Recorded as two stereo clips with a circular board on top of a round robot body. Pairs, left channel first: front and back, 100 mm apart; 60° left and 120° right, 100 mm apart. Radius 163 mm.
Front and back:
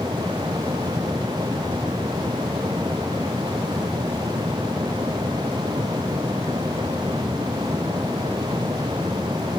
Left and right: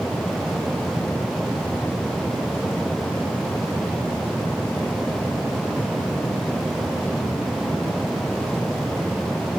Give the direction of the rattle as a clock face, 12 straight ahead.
No rattle in this recording.